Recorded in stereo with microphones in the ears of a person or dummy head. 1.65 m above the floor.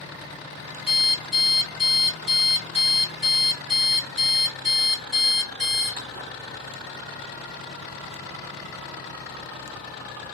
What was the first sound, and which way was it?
An alarm clock, 35° right (ahead or behind).